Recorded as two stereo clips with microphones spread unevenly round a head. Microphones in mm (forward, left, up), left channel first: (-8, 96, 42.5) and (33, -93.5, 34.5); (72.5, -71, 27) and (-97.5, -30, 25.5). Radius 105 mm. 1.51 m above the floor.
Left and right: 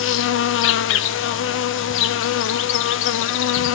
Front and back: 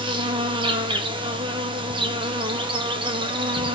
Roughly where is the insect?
Left.